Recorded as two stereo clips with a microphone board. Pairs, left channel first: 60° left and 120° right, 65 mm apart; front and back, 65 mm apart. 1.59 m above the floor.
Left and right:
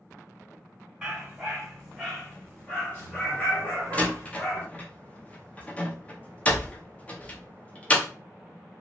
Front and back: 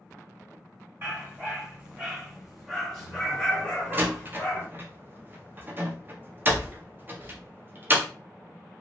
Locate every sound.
1.0 s a dog barking: 170° left, 1.5 m; by 4.7 s 50° left, 1.8 m
3.9 s a door slam: 130° left, 0.6 m